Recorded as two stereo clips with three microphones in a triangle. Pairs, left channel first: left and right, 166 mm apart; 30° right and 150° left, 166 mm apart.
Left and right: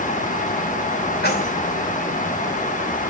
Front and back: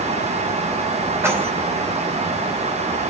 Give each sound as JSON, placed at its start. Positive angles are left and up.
{"t": 1.2, "sound": "keys jangling", "azimuth_deg": 75, "distance_m": 5.0}